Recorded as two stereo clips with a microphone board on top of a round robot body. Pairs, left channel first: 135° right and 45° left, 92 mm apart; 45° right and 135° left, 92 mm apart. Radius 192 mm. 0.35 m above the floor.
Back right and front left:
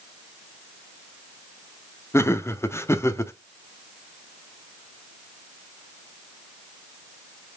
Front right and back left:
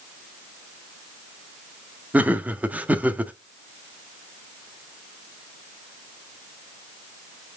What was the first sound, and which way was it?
Laughter, 165° right.